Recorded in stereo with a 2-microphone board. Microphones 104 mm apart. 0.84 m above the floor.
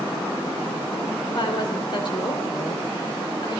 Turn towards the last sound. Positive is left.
turn(degrees=50)  # may be behind; listen again after turning